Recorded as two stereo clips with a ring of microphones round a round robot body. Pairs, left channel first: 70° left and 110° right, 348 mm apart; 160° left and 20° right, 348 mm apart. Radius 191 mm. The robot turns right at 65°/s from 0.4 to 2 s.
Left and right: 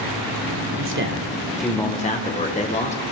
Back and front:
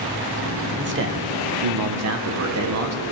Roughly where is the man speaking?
Right.